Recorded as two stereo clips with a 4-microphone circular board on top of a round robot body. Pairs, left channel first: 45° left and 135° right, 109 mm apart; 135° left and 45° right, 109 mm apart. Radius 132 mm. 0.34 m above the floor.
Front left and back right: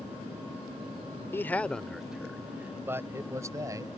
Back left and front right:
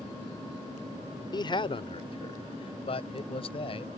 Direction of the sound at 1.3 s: 105° left.